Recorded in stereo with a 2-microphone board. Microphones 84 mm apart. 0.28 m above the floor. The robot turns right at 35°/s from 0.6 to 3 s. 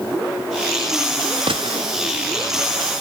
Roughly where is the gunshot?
Right.